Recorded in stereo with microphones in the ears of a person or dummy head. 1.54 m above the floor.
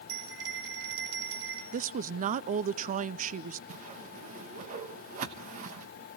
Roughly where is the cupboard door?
No cupboard door in this recording.